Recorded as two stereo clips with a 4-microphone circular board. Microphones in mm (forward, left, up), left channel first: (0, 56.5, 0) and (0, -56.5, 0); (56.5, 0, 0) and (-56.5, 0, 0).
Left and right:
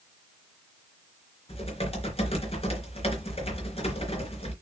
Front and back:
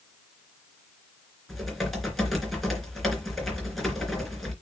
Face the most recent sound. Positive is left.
turn(degrees=90)